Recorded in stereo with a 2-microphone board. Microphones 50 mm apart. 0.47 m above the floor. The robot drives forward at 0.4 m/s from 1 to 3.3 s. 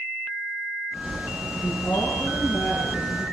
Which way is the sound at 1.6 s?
60° left (ahead or behind).